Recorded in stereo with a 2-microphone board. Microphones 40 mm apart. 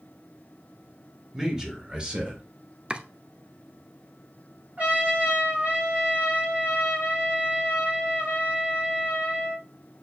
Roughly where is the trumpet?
Right.